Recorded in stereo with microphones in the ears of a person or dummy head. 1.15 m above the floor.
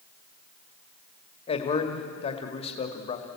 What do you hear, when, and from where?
1.5 s a man speaking: 30° left (ahead or behind), 1.8 m